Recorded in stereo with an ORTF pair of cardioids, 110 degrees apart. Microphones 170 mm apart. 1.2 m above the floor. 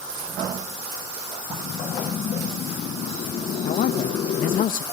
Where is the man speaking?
55° left, 1.0 m.